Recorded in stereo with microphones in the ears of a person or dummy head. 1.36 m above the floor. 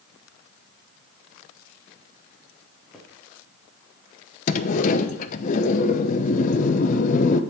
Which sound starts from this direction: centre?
Footsteps, at 2.9 s.